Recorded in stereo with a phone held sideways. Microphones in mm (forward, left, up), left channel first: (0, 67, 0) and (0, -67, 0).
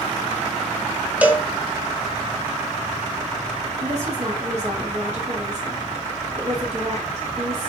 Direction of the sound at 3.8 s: 55° right (ahead or behind).